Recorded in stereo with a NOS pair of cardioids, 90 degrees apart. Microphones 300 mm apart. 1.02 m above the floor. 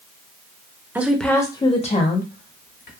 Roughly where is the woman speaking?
Ahead.